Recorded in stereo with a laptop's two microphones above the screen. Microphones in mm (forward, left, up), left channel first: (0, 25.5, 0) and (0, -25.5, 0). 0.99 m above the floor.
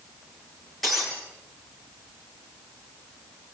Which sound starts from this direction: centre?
Breaking glass, at 0.8 s.